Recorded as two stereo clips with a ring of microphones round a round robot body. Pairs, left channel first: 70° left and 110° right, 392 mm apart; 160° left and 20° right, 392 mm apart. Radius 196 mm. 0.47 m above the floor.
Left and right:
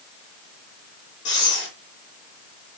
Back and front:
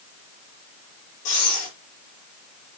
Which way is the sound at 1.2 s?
130° left.